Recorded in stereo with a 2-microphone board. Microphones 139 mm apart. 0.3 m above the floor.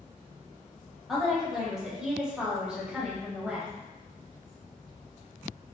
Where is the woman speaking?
Centre (ahead or behind), 1.0 m; by 3.7 s 10° right (ahead or behind), 1.2 m.